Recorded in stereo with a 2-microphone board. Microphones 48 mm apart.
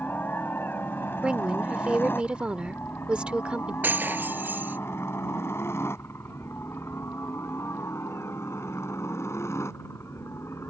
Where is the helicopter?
40° left (ahead or behind); by 10.7 s 70° left (ahead or behind).